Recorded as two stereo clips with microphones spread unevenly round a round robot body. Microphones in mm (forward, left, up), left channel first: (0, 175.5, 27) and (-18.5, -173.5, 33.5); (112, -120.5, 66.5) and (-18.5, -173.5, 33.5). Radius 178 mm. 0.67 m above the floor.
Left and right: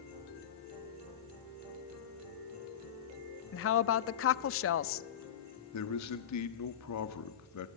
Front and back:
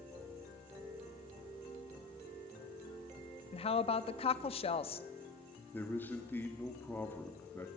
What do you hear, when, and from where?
3.5 s a woman speaking: 65° left, 0.6 m
5.7 s a man speaking: 110° left, 1.5 m